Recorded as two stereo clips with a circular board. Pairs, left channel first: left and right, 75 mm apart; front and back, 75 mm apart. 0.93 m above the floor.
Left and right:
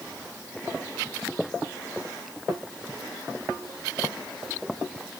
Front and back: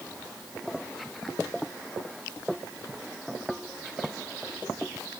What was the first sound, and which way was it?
Only background noise.